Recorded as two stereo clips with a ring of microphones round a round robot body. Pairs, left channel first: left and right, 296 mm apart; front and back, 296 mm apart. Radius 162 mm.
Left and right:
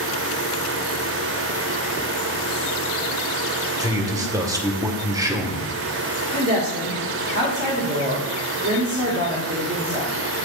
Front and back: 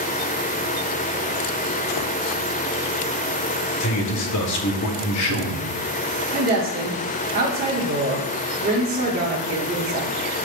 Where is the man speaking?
15° right, 1.5 m.